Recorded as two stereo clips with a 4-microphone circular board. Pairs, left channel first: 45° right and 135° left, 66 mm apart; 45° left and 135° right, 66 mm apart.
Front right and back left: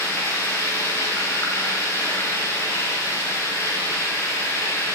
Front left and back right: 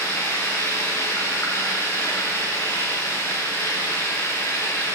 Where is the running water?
5° right, 6 m.